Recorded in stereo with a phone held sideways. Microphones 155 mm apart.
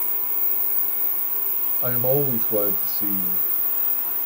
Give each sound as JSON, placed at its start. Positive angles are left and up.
{"t": 1.8, "sound": "a man speaking", "side_deg": -35, "distance_m": 1.2}